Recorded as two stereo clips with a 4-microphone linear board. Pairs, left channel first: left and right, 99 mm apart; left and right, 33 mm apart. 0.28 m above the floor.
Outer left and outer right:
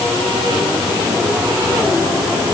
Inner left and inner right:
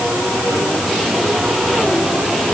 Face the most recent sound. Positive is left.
No sound to turn to.